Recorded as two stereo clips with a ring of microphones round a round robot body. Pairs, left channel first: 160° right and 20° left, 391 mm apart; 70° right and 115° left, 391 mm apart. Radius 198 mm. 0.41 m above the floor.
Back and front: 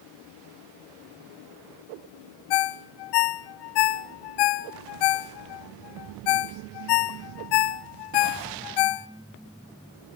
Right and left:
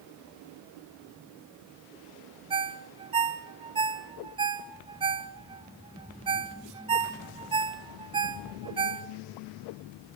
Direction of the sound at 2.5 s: 170° right.